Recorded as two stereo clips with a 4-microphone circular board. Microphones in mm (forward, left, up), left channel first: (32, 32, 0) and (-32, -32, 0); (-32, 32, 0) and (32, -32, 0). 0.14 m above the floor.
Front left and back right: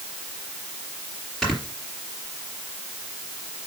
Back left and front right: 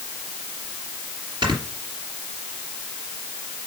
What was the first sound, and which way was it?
Snoring, 45° right.